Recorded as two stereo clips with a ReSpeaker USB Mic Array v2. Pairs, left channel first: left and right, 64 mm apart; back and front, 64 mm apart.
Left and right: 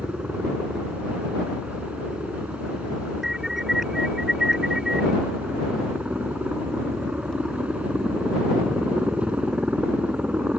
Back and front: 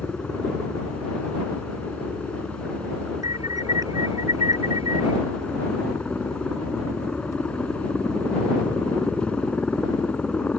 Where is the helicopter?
135° right.